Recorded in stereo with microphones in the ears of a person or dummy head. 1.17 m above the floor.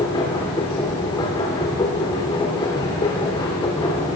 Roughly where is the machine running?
Left.